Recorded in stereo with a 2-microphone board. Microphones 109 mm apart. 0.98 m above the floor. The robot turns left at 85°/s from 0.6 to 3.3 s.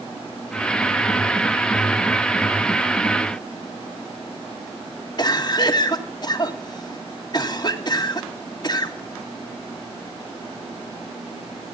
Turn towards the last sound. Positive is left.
turn(degrees=40)  # may be behind; listen again after turning